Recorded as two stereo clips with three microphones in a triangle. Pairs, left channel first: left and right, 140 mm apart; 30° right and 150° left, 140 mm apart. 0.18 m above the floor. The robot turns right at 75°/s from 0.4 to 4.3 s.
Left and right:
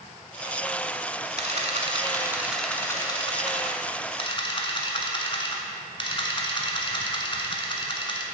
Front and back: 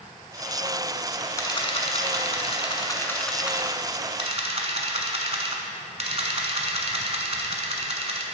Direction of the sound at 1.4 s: 90° right.